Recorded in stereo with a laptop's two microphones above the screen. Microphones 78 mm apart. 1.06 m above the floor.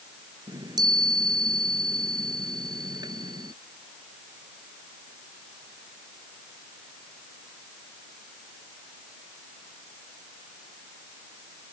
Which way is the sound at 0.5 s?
55° right (ahead or behind).